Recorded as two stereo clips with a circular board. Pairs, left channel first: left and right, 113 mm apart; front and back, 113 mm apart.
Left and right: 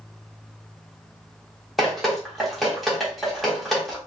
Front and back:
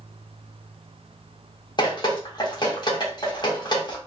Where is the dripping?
Straight ahead, 1.1 m.